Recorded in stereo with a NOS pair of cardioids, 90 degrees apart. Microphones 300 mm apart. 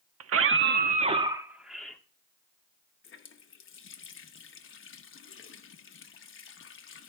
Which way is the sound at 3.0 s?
45° left.